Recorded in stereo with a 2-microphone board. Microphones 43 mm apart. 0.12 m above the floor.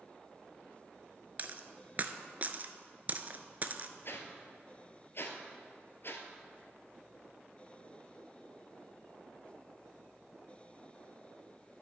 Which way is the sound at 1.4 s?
40° right (ahead or behind).